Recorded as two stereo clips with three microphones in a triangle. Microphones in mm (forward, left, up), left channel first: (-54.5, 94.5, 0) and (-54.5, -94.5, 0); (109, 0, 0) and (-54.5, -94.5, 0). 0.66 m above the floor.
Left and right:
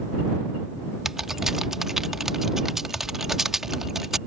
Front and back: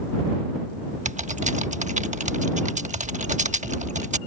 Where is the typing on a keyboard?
175° right.